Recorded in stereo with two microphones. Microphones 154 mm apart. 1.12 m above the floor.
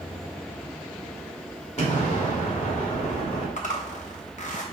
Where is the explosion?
45° left (ahead or behind), 1.7 m.